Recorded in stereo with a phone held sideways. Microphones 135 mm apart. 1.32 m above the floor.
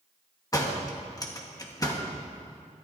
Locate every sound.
0.5 s a door slam: 25° left (ahead or behind), 1.4 m